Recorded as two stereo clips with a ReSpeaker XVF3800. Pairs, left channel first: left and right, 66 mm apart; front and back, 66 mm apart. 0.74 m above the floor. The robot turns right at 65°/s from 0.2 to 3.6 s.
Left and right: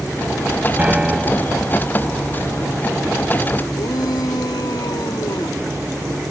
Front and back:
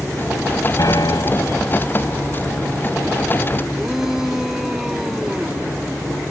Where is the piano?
25° right; by 1.6 s 30° left.